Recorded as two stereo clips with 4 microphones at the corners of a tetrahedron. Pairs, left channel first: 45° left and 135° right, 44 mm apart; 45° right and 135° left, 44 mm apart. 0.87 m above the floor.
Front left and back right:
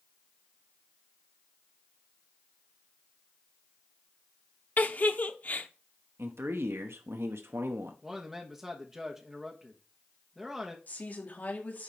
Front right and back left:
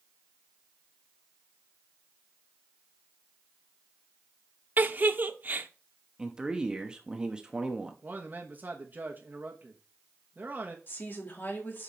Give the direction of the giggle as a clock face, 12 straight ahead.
9 o'clock.